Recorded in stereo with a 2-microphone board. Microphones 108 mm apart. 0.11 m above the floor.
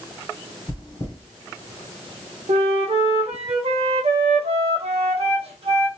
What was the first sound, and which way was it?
Chewing, 35° left (ahead or behind).